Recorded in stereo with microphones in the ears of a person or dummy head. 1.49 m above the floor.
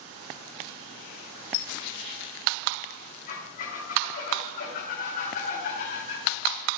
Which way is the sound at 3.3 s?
50° left (ahead or behind).